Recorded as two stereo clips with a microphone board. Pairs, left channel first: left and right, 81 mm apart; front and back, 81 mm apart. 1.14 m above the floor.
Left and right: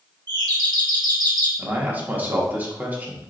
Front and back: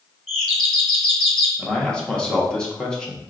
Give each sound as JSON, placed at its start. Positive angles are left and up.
{"t": 0.3, "sound": "a doorbell", "azimuth_deg": -90, "distance_m": 1.1}
{"t": 1.6, "sound": "a man speaking", "azimuth_deg": -65, "distance_m": 0.7}